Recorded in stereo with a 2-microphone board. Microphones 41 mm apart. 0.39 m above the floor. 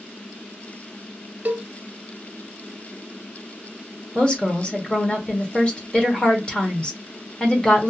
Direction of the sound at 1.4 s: 40° right (ahead or behind).